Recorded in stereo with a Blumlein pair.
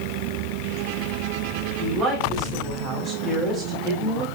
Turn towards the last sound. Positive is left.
turn(degrees=-30)